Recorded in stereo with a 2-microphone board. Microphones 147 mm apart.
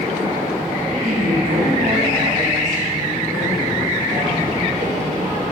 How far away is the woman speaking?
About 3 m.